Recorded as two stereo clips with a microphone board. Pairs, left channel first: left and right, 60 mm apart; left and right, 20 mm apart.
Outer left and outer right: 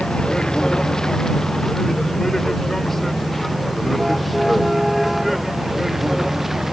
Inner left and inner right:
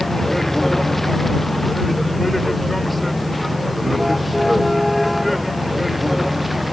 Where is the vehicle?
15° left (ahead or behind); by 6.7 s 5° right (ahead or behind).